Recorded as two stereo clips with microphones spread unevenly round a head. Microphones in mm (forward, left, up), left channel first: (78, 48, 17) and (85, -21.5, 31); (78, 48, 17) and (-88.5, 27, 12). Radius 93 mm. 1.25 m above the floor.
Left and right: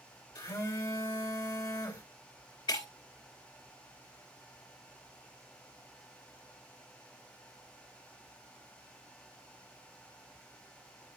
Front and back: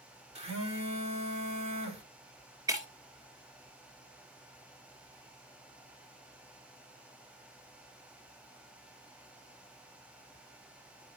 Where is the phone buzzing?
135° left, 2 m.